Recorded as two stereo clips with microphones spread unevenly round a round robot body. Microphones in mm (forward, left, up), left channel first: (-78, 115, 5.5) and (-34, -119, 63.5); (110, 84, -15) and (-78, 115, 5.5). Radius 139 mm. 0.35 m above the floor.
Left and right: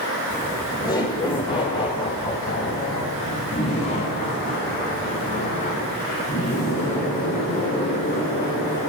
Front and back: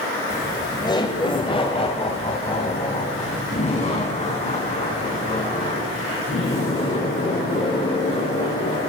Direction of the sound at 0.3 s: 50° left.